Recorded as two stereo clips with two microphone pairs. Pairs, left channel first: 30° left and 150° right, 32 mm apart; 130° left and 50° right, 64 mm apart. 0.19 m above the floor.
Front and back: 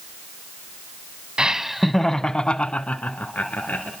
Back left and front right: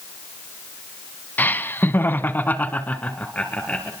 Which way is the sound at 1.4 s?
170° left.